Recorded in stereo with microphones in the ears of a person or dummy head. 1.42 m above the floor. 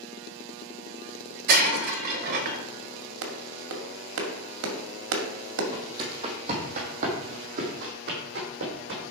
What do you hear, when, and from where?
1.5 s breaking glass: 55° right (ahead or behind), 1.0 m
3.2 s a clap: 75° right (ahead or behind), 2 m
5.7 s footsteps: 20° right (ahead or behind), 3 m; by 9.1 s 60° right (ahead or behind), 5 m